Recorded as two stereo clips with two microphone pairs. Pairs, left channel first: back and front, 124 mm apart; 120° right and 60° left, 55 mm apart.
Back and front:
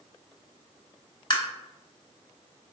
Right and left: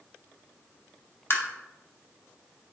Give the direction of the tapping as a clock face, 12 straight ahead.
5 o'clock.